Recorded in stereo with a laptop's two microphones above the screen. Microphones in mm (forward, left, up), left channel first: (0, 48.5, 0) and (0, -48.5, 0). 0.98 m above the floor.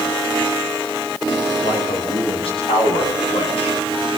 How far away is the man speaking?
About 9 m.